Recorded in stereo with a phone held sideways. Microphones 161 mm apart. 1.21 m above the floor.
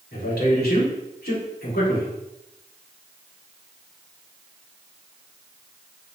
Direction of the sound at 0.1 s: 80° left.